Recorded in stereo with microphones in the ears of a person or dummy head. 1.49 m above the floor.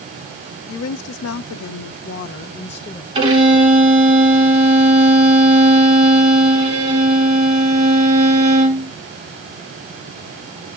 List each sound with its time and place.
0.7 s a woman speaking: 85° left, 1.2 m; by 3.0 s 20° left (ahead or behind), 0.7 m
3.1 s a violin: 30° right (ahead or behind), 3 m